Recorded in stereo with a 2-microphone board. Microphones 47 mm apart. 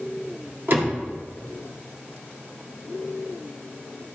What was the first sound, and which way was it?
A door slam, 45° right (ahead or behind).